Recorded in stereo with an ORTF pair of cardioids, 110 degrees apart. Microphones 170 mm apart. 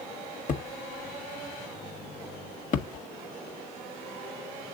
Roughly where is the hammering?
Ahead left.